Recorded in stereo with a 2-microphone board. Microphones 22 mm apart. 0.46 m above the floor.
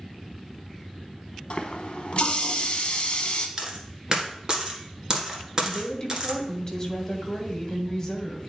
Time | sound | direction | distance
1.5 | a running tap | 45° left (ahead or behind) | 0.8 m
3.6 | a dropped coin | 35° right (ahead or behind) | 1.5 m
5.6 | a woman speaking | 20° left (ahead or behind) | 1.3 m